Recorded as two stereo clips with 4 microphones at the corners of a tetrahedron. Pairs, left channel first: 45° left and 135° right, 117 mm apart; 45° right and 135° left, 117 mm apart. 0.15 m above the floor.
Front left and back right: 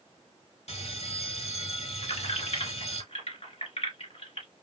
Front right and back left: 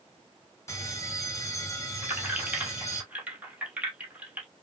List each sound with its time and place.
0.7 s a bell: 20° left, 1.1 m
2.0 s keys jangling: 60° left, 2 m